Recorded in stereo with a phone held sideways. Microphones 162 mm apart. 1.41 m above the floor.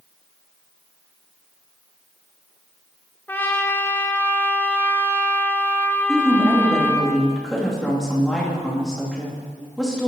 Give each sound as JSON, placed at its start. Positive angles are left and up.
{"t": 3.3, "sound": "a trumpet", "side_deg": 15, "distance_m": 0.8}
{"t": 6.1, "sound": "a woman speaking", "side_deg": 5, "distance_m": 2.5}